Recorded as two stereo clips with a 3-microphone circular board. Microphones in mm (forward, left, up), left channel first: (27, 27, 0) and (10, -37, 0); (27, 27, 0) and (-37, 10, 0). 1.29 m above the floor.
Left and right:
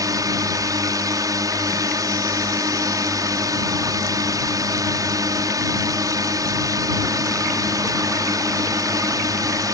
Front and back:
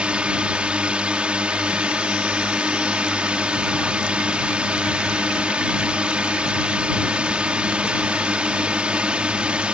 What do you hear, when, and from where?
0.0 s a drone: 95° right